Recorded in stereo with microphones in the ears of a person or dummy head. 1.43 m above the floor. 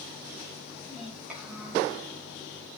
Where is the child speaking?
5° right (ahead or behind), 4.5 m; by 2.0 s 15° right (ahead or behind), 3 m.